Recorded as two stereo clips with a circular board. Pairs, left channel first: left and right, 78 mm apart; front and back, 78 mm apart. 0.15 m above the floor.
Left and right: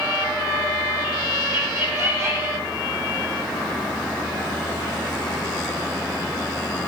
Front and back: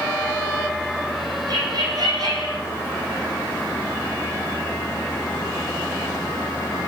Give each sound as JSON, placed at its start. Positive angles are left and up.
{"t": 1.5, "sound": "laughter", "azimuth_deg": -145, "distance_m": 6.5}